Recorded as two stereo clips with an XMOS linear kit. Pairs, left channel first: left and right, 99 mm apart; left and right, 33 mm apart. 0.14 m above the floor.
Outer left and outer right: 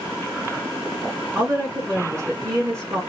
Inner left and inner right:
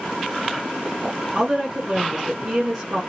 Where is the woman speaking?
30° right (ahead or behind), 1.6 m.